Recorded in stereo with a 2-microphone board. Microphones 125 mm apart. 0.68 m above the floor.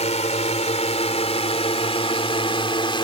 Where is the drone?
65° left (ahead or behind); by 3.0 s 40° left (ahead or behind).